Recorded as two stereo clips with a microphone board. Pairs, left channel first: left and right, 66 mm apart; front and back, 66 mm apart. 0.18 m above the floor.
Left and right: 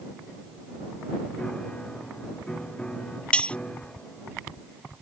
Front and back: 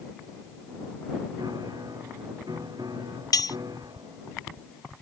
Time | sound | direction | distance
1.4 | a piano | 165° left | ?
3.3 | cutlery clinking | 20° left | ?